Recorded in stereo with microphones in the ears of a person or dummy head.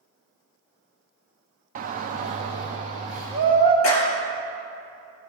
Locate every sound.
1.8 s a shout: 45° right (ahead or behind), 0.6 m; by 3.7 s 35° right (ahead or behind), 1.7 m
3.8 s a clap: 75° left (ahead or behind), 1.9 m